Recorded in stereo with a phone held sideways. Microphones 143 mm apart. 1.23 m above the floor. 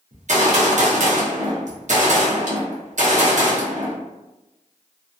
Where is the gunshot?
55° right (ahead or behind), 0.7 m.